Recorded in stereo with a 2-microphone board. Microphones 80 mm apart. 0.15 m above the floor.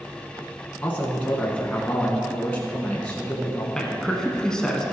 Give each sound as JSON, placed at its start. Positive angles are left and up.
{"t": 0.8, "sound": "a man speaking", "side_deg": 15, "distance_m": 1.3}
{"t": 3.8, "sound": "a man speaking", "side_deg": 10, "distance_m": 1.1}